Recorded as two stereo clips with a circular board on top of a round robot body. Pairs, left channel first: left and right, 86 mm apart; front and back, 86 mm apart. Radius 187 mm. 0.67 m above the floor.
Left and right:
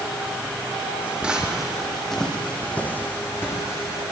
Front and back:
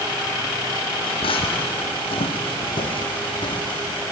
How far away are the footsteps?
About 2.5 m.